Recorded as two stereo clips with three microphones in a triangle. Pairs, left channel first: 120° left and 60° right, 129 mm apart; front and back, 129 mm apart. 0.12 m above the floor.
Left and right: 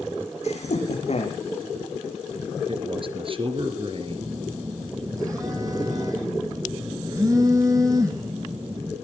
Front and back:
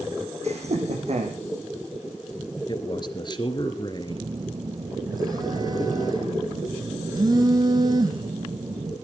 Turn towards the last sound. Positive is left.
turn(degrees=-120)